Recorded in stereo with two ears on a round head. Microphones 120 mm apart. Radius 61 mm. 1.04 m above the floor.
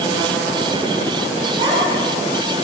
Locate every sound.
1.6 s a child speaking: 40° right (ahead or behind), 8.5 m; by 2.6 s 45° right (ahead or behind), 7 m